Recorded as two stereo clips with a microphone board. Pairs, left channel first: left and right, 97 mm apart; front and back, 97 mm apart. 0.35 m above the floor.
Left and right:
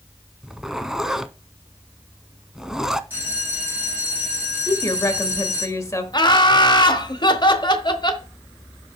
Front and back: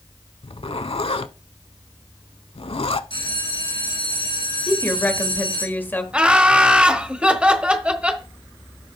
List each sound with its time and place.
0.4 s a zipper: 5° right, 0.5 m
3.1 s a bell: 20° right, 5 m
4.7 s a woman speaking: 55° left, 1.3 m
6.1 s laughter: 105° left, 1.3 m